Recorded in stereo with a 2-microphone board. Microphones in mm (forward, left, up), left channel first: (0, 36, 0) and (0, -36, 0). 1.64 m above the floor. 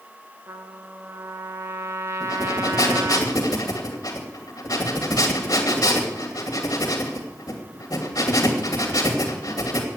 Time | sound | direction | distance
0.5 | a trumpet | 40° right (ahead or behind) | 1.5 m
2.2 | breathing | 60° left (ahead or behind) | 2.5 m